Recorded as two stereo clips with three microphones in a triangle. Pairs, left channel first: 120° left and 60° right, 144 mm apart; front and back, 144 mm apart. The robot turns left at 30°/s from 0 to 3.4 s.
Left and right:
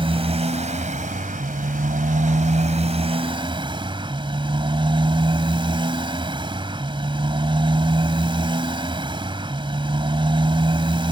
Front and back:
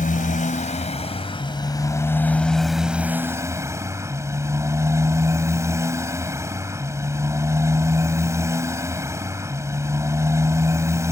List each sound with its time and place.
0.0 s a motorcycle: 10° right; by 11.1 s 110° right